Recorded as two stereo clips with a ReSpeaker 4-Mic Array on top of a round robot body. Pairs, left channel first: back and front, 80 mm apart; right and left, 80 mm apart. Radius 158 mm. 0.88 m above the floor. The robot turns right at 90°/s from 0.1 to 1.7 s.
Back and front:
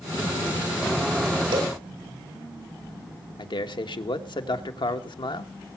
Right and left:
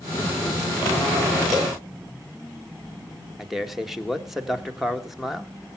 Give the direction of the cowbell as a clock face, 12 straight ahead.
12 o'clock.